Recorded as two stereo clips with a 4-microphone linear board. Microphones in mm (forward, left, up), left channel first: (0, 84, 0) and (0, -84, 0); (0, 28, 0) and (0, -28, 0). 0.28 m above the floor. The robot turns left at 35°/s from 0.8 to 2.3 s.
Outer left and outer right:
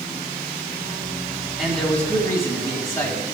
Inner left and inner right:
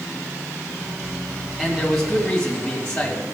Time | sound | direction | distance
1.6 | a man speaking | 5° right (ahead or behind) | 2 m